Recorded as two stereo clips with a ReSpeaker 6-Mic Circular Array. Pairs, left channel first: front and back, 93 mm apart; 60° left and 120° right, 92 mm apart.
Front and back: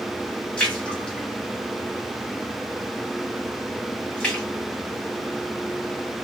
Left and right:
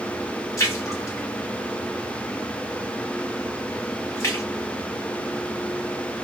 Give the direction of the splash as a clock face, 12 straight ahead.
10 o'clock.